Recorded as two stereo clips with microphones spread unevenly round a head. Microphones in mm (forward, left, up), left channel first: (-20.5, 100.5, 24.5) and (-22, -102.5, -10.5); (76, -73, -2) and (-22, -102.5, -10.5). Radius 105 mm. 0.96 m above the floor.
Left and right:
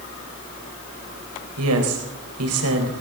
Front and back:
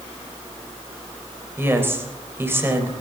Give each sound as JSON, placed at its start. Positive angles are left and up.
{"t": 1.6, "sound": "a woman speaking", "azimuth_deg": -95, "distance_m": 4.0}